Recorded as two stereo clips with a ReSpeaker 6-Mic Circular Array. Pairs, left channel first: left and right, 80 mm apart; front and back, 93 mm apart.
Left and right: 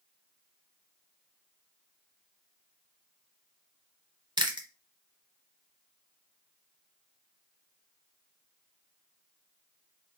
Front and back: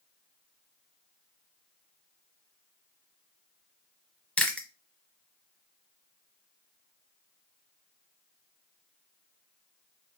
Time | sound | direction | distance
4.4 | chewing | 75° right | 0.8 m